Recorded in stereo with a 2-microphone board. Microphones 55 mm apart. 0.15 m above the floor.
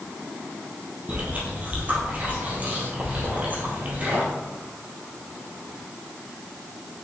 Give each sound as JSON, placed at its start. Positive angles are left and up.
{"t": 1.1, "sound": "chewing", "side_deg": -30, "distance_m": 2.5}